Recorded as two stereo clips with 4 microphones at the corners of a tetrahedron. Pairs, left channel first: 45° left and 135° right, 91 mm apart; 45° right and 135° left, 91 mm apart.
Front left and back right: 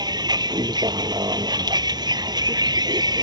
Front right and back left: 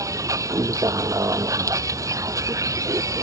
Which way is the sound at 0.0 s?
170° right.